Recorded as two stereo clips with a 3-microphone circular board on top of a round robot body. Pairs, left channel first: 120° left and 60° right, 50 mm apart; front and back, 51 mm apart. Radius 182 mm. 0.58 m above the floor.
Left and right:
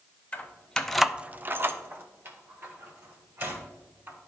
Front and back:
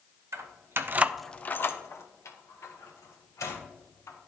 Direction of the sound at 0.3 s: 175° right.